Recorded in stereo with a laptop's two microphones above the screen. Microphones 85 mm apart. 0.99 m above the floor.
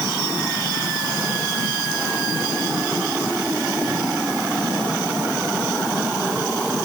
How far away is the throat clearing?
No throat clearing in this recording.